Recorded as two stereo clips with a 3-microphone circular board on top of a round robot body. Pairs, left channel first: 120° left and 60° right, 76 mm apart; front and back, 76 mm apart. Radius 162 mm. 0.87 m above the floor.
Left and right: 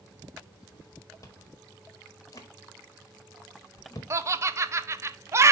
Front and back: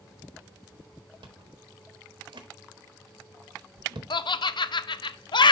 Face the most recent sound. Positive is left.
turn(degrees=-5)